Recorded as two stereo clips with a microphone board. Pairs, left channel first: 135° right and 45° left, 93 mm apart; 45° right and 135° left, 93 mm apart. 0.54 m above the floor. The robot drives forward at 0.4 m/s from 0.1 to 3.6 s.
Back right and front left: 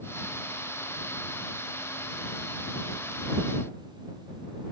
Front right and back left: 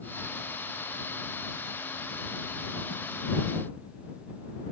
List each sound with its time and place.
Only background noise.